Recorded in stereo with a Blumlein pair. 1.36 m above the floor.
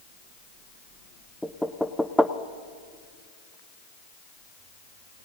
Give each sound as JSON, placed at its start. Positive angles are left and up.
{"t": 1.4, "sound": "knocking", "azimuth_deg": 0, "distance_m": 0.5}